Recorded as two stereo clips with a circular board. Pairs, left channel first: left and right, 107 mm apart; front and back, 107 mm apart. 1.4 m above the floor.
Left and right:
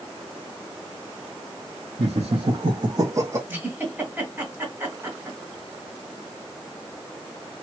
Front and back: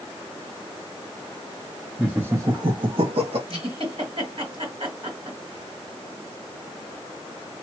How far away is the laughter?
About 0.6 m.